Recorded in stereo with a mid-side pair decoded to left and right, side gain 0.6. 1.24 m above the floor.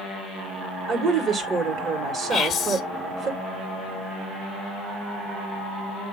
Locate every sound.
0.9 s a woman speaking: 45° right, 2 m
2.3 s whispering: 35° left, 0.8 m